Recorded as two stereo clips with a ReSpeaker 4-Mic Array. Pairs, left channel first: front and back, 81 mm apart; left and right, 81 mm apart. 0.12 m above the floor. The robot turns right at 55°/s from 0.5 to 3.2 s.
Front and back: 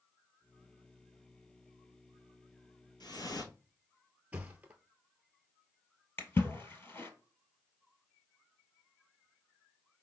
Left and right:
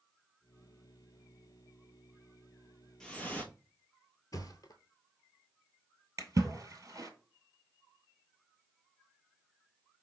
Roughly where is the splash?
Ahead right.